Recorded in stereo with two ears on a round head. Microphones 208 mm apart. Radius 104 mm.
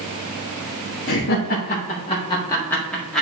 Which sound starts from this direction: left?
Laughter, at 1.1 s.